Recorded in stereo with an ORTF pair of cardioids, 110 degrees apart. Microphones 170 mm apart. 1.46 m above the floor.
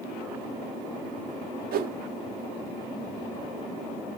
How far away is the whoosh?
About 0.8 m.